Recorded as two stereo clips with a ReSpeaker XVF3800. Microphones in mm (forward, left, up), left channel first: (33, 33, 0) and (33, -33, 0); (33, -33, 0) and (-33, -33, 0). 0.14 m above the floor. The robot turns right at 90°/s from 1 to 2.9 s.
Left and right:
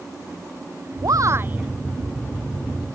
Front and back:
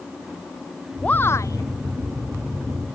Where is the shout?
75° right; by 1.7 s 15° right.